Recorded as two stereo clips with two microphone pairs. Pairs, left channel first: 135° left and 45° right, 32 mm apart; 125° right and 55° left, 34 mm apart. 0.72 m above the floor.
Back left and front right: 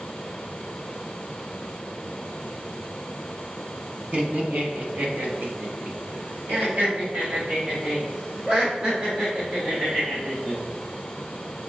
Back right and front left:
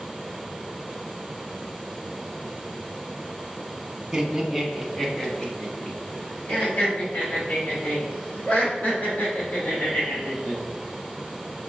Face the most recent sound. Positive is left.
turn(degrees=-85)